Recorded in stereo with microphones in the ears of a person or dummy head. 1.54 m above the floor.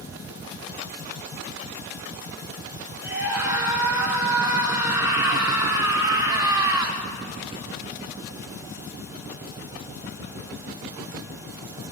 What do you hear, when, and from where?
3.0 s a scream: 10° right (ahead or behind), 6 m; by 7.0 s 15° right (ahead or behind), 2.5 m